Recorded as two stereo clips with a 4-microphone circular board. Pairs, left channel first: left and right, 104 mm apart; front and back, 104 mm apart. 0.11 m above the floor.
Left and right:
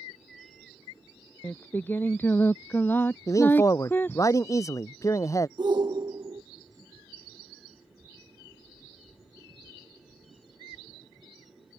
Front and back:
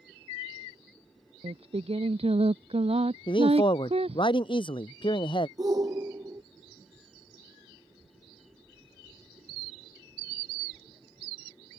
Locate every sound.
1.4 s singing: 160° left
3.3 s a man speaking: 35° left
5.6 s a shout: 130° right